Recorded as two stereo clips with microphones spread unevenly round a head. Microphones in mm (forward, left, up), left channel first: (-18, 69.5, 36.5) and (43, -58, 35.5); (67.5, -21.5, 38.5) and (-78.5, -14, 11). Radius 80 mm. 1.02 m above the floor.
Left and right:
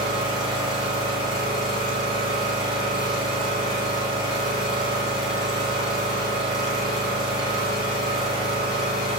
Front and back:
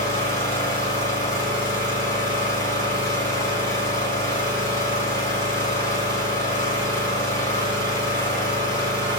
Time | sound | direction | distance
0.0 | an engine running | 50° left | 1.2 m